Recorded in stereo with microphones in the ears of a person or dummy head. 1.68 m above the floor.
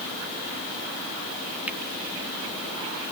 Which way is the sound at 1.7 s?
5° right (ahead or behind).